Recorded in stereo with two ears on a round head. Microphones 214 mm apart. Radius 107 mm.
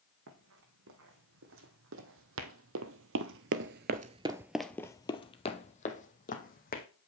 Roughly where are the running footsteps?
Right.